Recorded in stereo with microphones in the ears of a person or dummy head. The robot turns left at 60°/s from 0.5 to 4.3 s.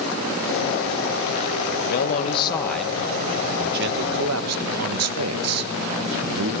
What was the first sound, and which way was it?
A man speaking, 75° left.